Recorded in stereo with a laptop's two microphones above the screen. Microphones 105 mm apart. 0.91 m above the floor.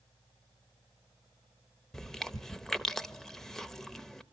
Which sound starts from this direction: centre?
Chewing, at 1.9 s.